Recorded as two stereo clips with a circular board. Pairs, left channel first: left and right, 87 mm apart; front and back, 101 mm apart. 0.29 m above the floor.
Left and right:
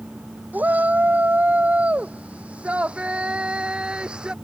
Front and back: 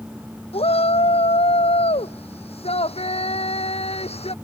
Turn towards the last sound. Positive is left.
turn(degrees=-10)